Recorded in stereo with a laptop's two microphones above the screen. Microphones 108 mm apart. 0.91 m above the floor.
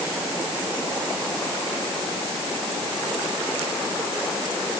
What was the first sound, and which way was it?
Only background noise.